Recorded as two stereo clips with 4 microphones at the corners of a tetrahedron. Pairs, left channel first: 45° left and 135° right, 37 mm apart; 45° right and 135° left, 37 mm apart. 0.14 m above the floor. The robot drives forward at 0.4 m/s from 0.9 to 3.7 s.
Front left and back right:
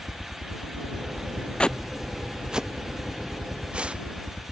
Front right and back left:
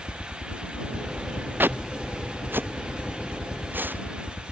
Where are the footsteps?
110° left; by 4.5 s 165° left.